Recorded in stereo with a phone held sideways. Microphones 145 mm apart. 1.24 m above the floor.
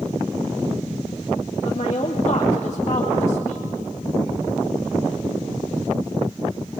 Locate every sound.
1.6 s a woman speaking: 50° left (ahead or behind), 2.5 m